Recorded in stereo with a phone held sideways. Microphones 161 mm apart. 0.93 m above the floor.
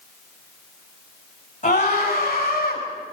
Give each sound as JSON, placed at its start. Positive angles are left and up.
{"t": 1.6, "sound": "a scream", "side_deg": 50, "distance_m": 6.5}